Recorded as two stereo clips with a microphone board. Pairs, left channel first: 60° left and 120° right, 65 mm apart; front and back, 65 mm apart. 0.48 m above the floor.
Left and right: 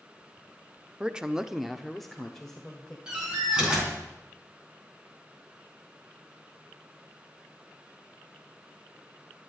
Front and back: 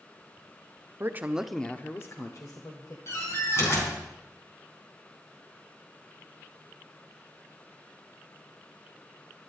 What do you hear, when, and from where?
1.0 s a woman speaking: 175° left, 1.0 m; by 3.0 s 20° right, 2 m
3.1 s a door slam: 45° right, 4 m